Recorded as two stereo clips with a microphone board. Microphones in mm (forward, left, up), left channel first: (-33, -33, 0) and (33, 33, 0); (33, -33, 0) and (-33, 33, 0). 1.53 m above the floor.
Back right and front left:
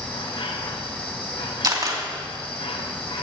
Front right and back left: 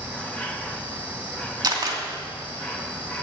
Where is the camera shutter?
90° left, 2.5 m.